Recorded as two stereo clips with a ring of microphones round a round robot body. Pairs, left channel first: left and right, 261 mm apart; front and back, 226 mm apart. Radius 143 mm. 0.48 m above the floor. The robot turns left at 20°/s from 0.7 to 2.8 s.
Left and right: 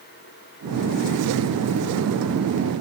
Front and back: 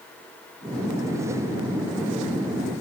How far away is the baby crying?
No baby crying in this recording.